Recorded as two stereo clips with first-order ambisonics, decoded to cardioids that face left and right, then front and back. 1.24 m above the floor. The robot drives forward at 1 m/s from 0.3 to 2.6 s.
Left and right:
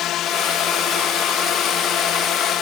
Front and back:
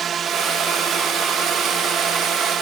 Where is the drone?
125° left; by 2.6 s 130° left.